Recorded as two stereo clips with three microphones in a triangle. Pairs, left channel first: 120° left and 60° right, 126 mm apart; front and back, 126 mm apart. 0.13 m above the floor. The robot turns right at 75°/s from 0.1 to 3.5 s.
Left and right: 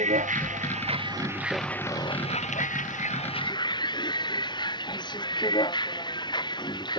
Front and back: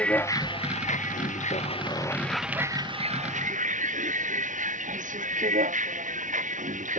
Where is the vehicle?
80° right; by 7.0 s 175° left.